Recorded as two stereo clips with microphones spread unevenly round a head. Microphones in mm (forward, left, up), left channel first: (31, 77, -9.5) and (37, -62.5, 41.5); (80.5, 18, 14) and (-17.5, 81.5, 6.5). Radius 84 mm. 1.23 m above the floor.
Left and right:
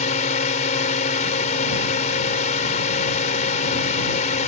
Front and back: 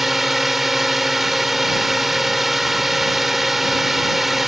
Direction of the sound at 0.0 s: 60° left.